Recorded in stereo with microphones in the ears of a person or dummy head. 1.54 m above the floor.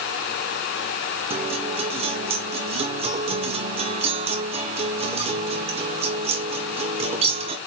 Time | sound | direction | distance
1.3 | a guitar | 30° right (ahead or behind) | 0.9 m